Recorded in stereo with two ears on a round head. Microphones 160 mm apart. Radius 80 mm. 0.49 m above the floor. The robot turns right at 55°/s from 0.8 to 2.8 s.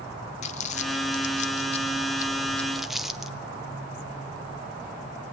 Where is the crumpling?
40° left (ahead or behind), 1.3 m; by 3.4 s centre (ahead or behind), 1.3 m.